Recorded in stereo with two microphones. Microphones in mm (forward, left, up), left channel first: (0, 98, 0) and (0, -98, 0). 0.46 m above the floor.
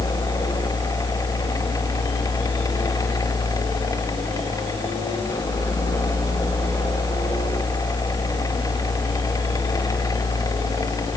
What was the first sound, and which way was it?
Only background noise.